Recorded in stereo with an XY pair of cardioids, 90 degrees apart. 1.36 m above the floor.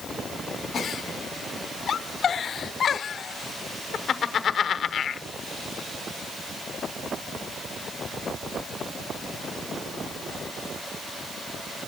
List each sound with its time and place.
0.7 s a giggle: 55° left, 0.9 m